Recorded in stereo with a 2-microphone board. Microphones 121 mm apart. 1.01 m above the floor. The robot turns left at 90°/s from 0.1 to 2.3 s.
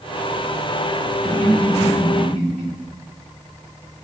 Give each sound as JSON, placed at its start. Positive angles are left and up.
{"t": 1.2, "sound": "laughter", "side_deg": 10, "distance_m": 2.0}